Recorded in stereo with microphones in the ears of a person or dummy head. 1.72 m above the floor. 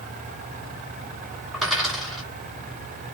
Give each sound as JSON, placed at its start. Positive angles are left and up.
{"t": 1.5, "sound": "a dropped coin", "side_deg": 0, "distance_m": 1.8}